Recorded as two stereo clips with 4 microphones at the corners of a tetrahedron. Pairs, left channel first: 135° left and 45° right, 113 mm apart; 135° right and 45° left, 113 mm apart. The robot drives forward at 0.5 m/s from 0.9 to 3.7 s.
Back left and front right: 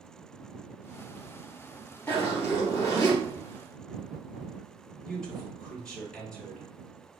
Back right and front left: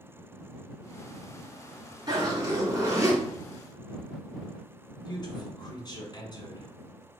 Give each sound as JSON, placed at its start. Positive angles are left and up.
{"t": 2.1, "sound": "a zipper", "azimuth_deg": 70, "distance_m": 2.5}
{"t": 5.0, "sound": "a man speaking", "azimuth_deg": -145, "distance_m": 1.5}